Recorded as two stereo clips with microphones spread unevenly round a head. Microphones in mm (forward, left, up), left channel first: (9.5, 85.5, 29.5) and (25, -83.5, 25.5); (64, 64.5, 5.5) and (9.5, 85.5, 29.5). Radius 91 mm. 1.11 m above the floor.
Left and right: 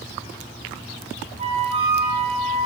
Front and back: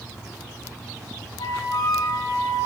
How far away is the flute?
About 5 m.